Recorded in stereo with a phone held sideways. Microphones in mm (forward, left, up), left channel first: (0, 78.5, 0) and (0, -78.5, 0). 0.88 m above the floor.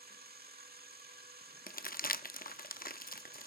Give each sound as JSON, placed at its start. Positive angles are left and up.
{"t": 0.0, "sound": "a machine running", "side_deg": -85, "distance_m": 1.3}
{"t": 1.7, "sound": "crumpling", "side_deg": 65, "distance_m": 0.5}